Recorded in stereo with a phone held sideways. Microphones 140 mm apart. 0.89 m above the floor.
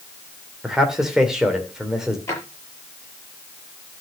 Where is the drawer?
20° left (ahead or behind), 6 m.